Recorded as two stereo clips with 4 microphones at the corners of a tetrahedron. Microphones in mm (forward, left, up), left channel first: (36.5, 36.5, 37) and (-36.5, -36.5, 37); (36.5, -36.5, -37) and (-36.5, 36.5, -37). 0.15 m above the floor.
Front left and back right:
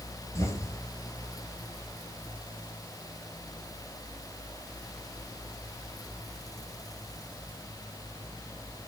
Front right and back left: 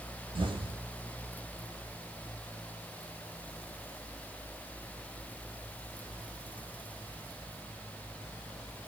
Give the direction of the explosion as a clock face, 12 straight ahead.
9 o'clock.